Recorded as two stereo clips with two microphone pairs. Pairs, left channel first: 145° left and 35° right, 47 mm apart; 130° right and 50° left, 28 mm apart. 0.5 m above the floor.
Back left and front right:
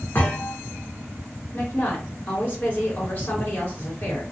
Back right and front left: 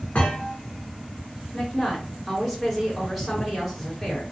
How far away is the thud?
About 1.3 m.